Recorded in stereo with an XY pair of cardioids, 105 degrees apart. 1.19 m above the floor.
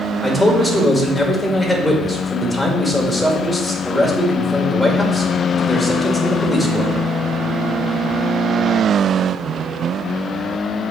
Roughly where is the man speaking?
Ahead.